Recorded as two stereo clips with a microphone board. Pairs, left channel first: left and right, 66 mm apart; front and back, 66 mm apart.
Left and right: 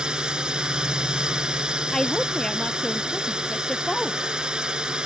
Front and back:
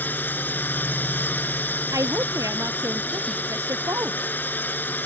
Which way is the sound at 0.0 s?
25° right.